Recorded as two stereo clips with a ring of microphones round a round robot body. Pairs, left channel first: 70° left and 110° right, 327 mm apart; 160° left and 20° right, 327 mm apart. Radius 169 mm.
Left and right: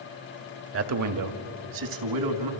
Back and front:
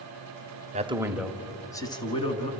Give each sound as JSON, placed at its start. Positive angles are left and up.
{"t": 0.7, "sound": "a man speaking", "azimuth_deg": -85, "distance_m": 1.2}